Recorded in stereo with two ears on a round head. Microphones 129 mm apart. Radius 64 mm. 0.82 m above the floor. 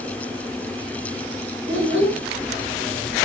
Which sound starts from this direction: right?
A child speaking, at 1.7 s.